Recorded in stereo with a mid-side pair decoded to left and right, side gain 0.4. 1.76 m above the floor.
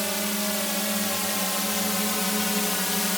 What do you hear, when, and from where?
0.0 s a drone: 5° right; by 3.2 s 15° left